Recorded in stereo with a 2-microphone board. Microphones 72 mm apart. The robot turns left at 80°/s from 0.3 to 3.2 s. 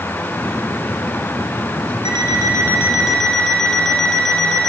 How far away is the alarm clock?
About 4 m.